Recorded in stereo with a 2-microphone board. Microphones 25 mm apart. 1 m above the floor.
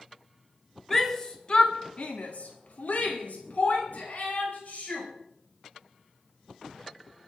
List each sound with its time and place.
0.9 s a shout: 10° left (ahead or behind), 2 m; by 5.1 s 75° left (ahead or behind), 5 m